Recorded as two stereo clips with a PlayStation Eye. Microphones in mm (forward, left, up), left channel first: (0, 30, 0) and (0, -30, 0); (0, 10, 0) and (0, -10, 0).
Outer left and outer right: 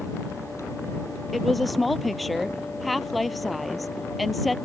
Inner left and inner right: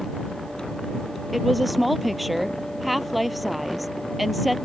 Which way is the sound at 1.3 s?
Centre (ahead or behind).